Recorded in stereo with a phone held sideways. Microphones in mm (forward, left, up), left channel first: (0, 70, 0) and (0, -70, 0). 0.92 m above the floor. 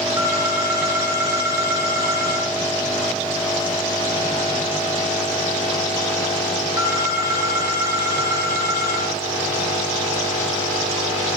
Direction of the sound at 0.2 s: 25° right (ahead or behind).